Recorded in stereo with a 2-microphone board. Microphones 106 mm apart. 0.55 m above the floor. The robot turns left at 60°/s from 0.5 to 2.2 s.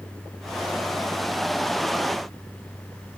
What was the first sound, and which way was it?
Only background noise.